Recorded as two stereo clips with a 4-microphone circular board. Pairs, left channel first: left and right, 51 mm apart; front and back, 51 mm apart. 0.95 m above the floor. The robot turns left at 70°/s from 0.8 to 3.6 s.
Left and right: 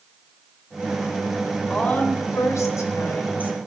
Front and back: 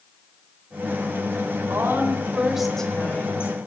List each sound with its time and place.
1.7 s a woman speaking: 160° left, 3.5 m; by 3.6 s 30° left, 3.5 m